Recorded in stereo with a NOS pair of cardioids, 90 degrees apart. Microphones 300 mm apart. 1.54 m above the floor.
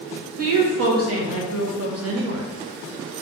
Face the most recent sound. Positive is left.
turn(degrees=-55)